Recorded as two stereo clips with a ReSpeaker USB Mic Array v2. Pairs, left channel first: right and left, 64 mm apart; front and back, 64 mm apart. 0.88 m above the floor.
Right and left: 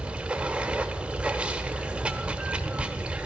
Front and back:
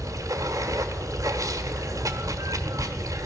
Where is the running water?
160° left, 1.1 m.